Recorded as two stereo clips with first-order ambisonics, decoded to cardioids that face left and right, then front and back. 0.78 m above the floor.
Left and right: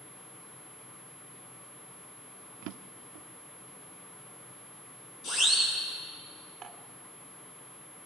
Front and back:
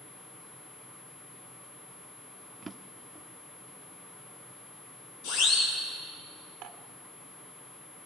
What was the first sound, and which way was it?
A drawer, 100° right.